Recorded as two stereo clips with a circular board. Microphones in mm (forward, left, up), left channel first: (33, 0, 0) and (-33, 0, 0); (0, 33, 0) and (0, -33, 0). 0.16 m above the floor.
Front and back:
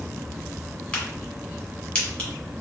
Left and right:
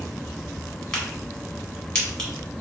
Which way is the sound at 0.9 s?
25° left.